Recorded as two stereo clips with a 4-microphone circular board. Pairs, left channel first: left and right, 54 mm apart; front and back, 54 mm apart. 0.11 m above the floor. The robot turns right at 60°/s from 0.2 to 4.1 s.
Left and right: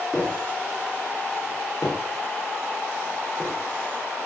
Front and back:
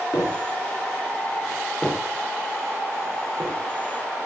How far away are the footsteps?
About 7 m.